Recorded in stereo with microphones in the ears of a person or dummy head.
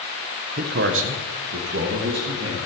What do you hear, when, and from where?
0.6 s a man speaking: 50° right (ahead or behind), 1.1 m; by 2.5 s 55° right (ahead or behind), 2.5 m